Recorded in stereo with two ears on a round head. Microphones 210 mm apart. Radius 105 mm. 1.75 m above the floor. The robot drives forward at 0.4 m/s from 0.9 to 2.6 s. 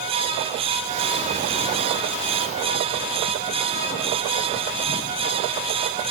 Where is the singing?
No singing in this recording.